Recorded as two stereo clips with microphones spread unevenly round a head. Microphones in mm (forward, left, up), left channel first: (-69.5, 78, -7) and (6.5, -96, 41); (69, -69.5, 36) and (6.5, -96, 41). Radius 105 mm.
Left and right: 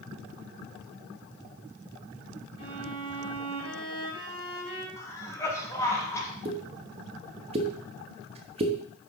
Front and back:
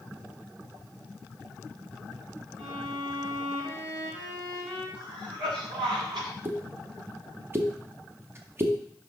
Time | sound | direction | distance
2.6 | a violin | 175° right | 3 m
5.0 | a cough | 170° right | 1.8 m
6.5 | a pop | 110° right | 0.9 m